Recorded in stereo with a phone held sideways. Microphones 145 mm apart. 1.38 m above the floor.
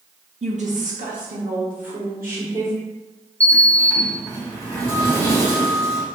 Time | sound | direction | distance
0.4 | a woman speaking | 50° right (ahead or behind) | 0.5 m
3.4 | a sliding door | 20° right (ahead or behind) | 1.0 m